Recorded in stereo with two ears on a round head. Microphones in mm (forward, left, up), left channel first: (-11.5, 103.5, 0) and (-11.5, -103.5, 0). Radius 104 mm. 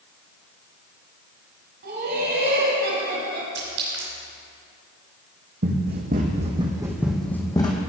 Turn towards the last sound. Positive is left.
turn(degrees=25)  # may be behind; listen again after turning